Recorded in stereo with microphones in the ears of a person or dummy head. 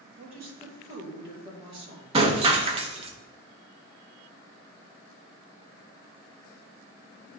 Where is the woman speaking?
30° right (ahead or behind), 2 m.